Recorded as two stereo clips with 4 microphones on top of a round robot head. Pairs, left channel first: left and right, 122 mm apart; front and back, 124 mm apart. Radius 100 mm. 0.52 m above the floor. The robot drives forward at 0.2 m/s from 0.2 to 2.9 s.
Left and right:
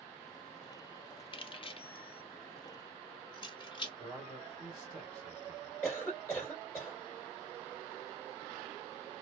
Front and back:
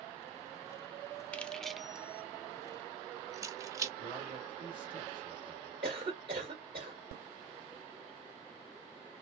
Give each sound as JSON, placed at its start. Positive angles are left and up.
{"t": 1.3, "sound": "keys jangling", "azimuth_deg": 80, "distance_m": 0.5}
{"t": 4.0, "sound": "a man speaking", "azimuth_deg": 140, "distance_m": 2.0}
{"t": 5.8, "sound": "a cough", "azimuth_deg": 155, "distance_m": 2.0}